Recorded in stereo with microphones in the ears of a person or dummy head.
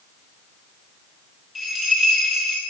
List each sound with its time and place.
1.6 s a bell: 5° right (ahead or behind), 1.3 m